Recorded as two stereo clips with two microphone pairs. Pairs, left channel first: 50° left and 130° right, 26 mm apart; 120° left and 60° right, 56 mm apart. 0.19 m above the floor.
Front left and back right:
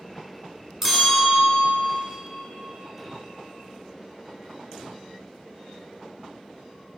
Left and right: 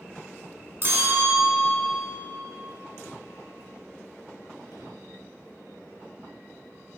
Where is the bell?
55° right, 1.5 m.